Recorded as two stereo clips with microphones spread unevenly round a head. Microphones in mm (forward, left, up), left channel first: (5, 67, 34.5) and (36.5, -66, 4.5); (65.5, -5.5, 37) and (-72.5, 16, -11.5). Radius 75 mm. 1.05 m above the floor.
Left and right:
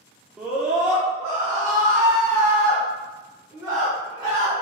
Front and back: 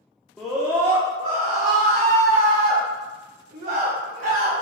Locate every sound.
0.4 s a scream: 135° right, 0.7 m; by 4.5 s 155° right, 3 m